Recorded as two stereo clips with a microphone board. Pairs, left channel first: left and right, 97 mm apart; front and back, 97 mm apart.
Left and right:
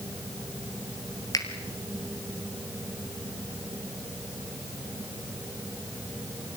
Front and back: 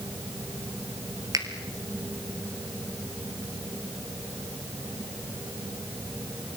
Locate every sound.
1.3 s a finger snap: 135° left, 2.5 m